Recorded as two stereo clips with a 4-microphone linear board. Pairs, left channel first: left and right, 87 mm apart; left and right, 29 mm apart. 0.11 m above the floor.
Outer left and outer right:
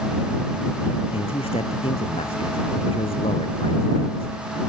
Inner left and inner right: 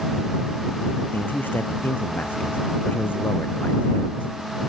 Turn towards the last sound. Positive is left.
turn(degrees=80)